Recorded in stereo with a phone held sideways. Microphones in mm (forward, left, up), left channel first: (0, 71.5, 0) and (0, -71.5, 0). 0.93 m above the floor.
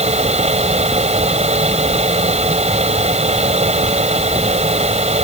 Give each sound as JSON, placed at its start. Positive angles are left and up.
{"t": 0.0, "sound": "a fan", "side_deg": -50}